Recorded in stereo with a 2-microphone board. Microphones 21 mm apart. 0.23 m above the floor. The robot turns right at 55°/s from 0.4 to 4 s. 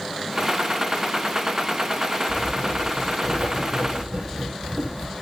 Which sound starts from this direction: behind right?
Writing, at 2.3 s.